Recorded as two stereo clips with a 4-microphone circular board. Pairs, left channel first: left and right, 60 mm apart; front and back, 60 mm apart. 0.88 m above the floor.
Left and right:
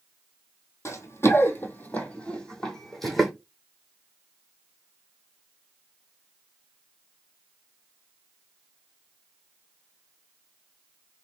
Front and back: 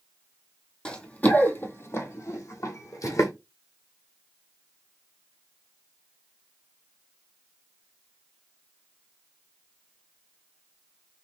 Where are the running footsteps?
70° left, 1.4 m; by 3.3 s straight ahead, 2.0 m.